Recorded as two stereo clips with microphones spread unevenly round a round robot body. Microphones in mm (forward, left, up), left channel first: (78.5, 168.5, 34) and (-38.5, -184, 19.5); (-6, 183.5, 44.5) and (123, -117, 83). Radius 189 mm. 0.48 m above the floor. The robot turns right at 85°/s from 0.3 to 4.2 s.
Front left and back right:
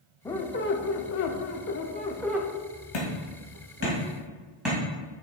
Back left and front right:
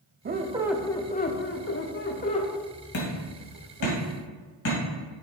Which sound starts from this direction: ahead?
A squeak, at 0.2 s.